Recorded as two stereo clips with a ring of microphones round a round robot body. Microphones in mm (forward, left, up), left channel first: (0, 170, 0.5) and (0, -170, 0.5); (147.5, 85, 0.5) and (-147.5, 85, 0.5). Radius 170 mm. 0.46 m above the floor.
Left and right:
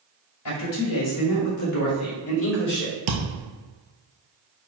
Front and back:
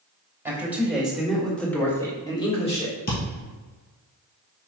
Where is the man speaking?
100° left, 2 m; by 3.0 s 50° left, 1.4 m.